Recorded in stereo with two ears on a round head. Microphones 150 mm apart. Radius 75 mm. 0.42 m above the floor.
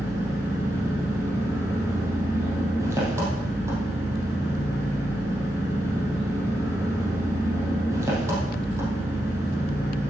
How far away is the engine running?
About 3.5 m.